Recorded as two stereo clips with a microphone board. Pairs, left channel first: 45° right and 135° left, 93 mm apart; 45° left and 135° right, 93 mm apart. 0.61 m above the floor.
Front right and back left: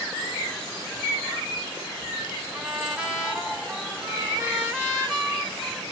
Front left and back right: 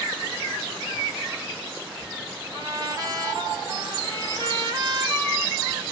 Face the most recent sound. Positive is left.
turn(degrees=-150)